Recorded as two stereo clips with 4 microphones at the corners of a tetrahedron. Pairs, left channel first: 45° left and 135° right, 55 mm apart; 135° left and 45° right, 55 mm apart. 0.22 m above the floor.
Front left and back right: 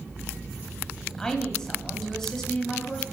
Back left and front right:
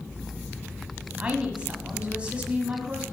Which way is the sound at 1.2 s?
20° right.